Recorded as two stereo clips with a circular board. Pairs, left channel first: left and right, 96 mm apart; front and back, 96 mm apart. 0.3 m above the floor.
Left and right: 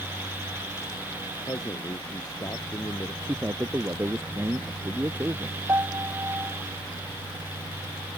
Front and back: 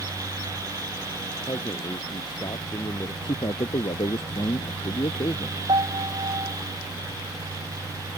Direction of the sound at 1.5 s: 40° left.